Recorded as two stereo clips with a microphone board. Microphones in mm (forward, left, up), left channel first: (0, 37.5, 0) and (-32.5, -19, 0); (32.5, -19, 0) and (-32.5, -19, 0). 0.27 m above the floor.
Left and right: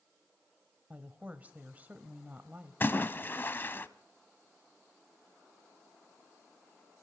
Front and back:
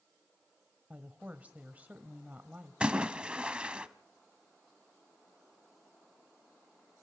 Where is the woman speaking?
145° right, 1.2 m.